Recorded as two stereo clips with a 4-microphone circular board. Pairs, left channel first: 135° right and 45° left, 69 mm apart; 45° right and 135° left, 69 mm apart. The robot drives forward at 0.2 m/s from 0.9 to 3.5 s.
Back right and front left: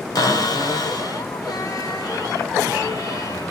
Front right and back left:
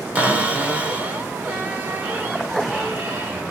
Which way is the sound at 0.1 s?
155° right.